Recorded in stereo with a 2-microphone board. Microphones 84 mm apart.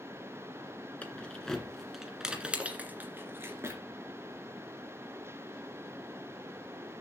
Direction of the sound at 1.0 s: 15° left (ahead or behind).